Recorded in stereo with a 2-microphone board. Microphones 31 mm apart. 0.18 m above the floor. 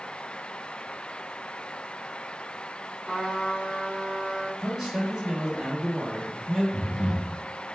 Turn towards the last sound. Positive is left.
turn(degrees=-35)  # may be behind; listen again after turning